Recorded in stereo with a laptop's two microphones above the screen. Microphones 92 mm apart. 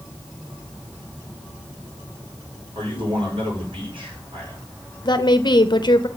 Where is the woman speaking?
55° left (ahead or behind), 0.7 m.